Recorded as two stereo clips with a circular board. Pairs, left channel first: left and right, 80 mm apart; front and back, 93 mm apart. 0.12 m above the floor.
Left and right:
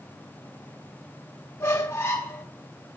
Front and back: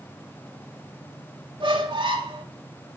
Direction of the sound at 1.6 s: 150° left.